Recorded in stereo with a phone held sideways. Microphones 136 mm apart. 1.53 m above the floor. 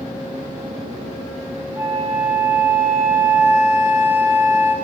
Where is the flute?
15° right (ahead or behind), 0.6 m.